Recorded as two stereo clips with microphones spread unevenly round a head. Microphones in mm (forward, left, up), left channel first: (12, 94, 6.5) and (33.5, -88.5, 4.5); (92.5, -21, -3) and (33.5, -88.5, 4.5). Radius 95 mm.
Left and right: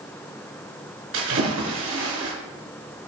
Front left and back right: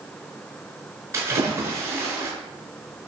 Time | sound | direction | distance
1.1 | a splash | 80° right | 5 m